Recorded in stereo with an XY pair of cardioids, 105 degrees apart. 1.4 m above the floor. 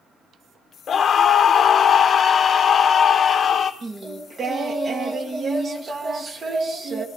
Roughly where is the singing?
Ahead right.